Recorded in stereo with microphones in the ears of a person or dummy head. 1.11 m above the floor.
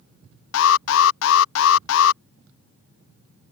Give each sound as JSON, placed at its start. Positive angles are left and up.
{"t": 0.5, "sound": "an alarm", "side_deg": 65}